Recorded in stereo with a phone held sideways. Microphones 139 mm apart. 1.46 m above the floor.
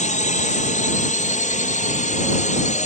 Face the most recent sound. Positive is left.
turn(degrees=60)  # may be behind; listen again after turning